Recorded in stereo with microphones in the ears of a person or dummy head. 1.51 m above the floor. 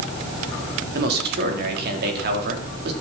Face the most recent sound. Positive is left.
turn(degrees=-55)  # may be behind; listen again after turning